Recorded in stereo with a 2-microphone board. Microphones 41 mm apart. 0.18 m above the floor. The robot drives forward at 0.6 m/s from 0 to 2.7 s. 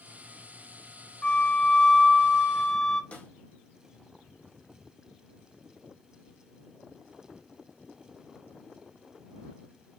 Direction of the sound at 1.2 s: 20° left (ahead or behind).